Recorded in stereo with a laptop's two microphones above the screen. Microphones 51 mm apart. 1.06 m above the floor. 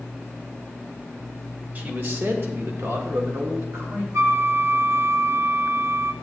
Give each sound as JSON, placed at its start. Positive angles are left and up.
{"t": 1.8, "sound": "a man speaking", "side_deg": -35, "distance_m": 1.1}
{"t": 4.1, "sound": "a flute", "side_deg": -65, "distance_m": 0.9}